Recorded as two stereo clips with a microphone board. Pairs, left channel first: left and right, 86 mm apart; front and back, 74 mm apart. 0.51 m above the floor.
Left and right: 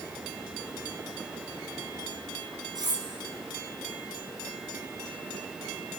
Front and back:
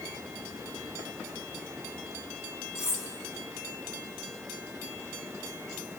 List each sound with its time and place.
2.8 s cutlery clinking: 50° right, 3.5 m